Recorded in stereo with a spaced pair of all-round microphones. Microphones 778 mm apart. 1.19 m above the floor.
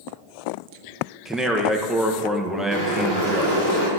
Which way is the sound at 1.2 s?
Centre (ahead or behind).